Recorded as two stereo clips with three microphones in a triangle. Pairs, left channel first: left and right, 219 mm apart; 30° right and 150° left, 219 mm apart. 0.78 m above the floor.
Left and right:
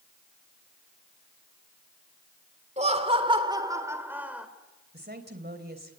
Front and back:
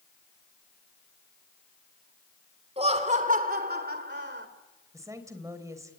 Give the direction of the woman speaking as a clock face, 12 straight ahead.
4 o'clock.